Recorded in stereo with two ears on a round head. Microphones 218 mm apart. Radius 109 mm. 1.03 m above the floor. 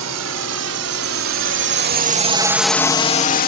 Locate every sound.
0.0 s a drone: 75° right (ahead or behind); by 3.5 s 40° left (ahead or behind)